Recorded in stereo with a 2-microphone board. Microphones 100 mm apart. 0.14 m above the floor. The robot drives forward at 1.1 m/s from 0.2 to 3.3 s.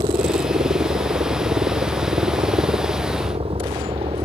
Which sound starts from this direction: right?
A helicopter, at 0.0 s.